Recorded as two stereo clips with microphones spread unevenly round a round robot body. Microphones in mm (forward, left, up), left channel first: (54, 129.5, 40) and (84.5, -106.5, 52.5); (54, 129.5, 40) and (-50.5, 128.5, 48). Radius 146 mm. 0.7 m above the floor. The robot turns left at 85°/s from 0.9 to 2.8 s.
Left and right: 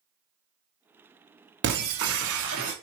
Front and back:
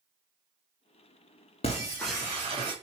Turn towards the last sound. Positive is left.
turn(degrees=-150)